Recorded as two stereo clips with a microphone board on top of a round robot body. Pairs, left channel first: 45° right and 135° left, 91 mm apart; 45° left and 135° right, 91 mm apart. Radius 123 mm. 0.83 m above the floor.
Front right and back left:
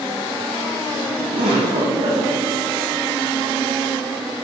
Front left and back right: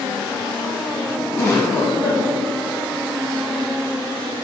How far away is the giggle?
About 1.3 m.